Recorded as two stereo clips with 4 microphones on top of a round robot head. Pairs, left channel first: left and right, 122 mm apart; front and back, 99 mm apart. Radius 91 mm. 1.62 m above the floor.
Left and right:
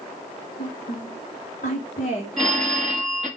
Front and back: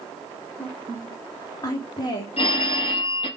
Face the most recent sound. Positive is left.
turn(degrees=0)